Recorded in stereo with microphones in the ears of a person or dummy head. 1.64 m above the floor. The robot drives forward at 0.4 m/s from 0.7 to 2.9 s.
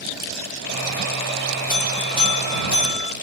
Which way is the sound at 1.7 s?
30° right (ahead or behind).